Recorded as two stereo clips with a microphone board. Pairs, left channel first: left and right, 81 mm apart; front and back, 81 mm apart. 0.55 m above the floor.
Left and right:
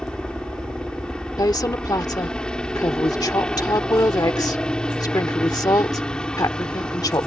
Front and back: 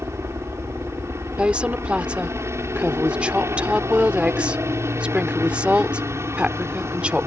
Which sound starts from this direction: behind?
A helicopter, at 0.0 s.